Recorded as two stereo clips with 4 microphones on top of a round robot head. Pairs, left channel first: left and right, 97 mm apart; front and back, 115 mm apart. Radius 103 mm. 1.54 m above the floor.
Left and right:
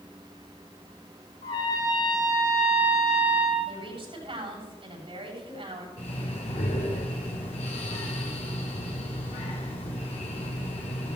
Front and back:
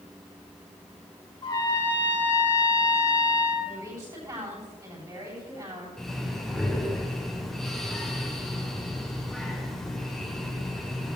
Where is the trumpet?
50° left, 3.5 m.